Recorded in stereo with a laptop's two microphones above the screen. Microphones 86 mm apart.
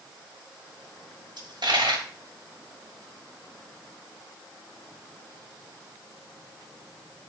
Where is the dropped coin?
75° right (ahead or behind), 1.5 m.